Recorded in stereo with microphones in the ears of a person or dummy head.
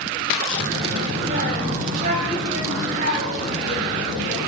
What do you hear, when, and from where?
0.5 s a child speaking: 65° right (ahead or behind), 4.5 m; by 4.5 s 50° right (ahead or behind), 10.5 m